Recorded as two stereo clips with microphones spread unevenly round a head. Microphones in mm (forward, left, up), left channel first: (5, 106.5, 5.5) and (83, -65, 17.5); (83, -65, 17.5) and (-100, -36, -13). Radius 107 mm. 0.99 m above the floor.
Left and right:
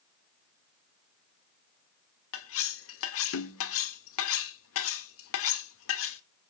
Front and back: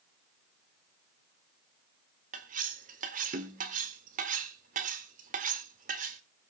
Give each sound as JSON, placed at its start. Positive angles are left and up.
{"t": 2.3, "sound": "cutlery clinking", "azimuth_deg": 115, "distance_m": 1.4}